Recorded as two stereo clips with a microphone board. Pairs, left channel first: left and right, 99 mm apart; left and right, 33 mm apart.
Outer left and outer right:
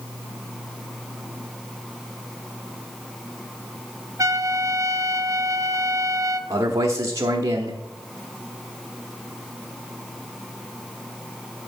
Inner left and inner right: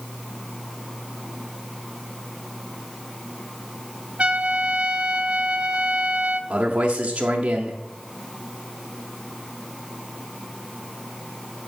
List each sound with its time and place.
4.2 s a trumpet: 35° right (ahead or behind), 0.6 m
6.5 s a man speaking: 35° right (ahead or behind), 0.9 m